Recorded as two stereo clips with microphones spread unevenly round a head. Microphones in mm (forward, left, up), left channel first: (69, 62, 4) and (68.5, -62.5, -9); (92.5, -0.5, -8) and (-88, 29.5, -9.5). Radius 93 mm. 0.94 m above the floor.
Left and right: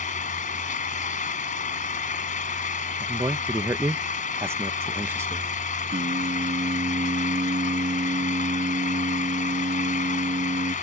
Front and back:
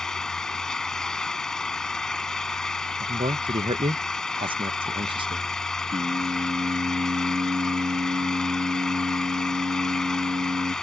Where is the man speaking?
145° right.